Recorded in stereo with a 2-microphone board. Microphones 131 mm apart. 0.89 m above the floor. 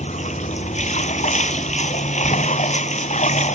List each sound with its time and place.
0.0 s running water: 65° left (ahead or behind)